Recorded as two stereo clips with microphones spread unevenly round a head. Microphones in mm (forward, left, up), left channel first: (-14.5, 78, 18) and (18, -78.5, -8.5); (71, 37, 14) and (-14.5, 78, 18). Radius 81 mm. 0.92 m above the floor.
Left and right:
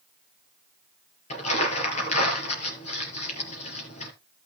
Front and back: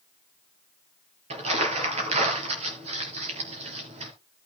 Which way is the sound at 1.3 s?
150° left.